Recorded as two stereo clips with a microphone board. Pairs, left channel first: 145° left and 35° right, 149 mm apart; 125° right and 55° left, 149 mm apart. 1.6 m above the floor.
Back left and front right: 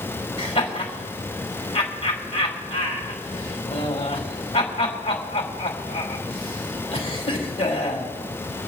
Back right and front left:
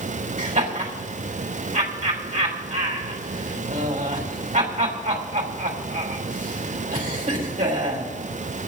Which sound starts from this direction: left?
Laughter, at 0.4 s.